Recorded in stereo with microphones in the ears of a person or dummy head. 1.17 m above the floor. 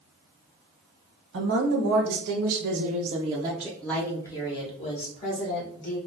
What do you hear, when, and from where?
1.3 s a woman speaking: 80° right, 1.4 m; by 6.0 s 45° left (ahead or behind), 1.7 m